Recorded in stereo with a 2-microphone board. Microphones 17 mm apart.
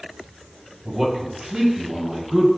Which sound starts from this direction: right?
A man speaking, at 0.8 s.